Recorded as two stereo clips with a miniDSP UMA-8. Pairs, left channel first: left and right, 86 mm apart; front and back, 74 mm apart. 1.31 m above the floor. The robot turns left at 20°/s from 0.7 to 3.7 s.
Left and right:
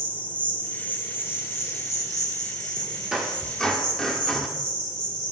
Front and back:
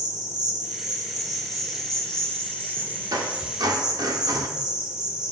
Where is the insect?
160° left, 2 m; by 5.3 s 100° left, 2 m.